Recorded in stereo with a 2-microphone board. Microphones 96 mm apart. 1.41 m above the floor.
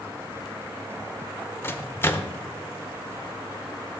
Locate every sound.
1.6 s a microwave: 25° left (ahead or behind), 0.6 m